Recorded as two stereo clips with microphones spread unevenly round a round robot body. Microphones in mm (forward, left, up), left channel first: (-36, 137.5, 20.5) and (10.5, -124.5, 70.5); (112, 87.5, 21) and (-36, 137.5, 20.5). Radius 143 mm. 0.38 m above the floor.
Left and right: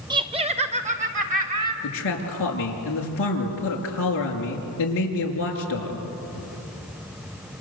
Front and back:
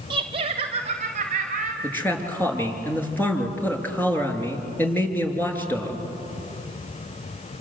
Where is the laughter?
160° right, 1.6 m; by 1.7 s 145° right, 3.5 m.